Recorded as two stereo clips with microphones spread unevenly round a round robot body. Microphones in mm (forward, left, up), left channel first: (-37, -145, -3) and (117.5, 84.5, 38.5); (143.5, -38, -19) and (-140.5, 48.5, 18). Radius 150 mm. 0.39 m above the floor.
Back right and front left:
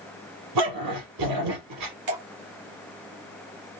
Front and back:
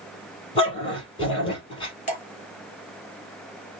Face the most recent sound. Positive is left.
turn(degrees=50)